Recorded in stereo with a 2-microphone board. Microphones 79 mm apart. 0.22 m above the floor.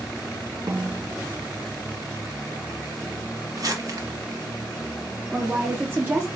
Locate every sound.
0.7 s a snare drum: 55° right (ahead or behind), 0.6 m
3.6 s crumpling: 55° right (ahead or behind), 1.0 m
5.3 s a woman speaking: 30° right (ahead or behind), 2.5 m